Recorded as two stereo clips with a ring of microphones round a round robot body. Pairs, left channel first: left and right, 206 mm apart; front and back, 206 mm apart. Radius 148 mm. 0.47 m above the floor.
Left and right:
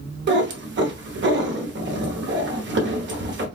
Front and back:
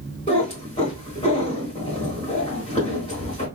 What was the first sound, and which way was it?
A cat meowing, 65° right.